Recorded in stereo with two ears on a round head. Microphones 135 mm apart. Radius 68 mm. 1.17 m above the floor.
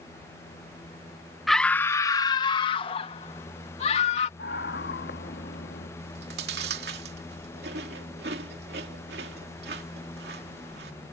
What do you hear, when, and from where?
1.5 s a scream: centre (ahead or behind); by 4.3 s 45° left (ahead or behind)
4.4 s a scream: 75° left (ahead or behind)
6.0 s chewing: 75° right (ahead or behind)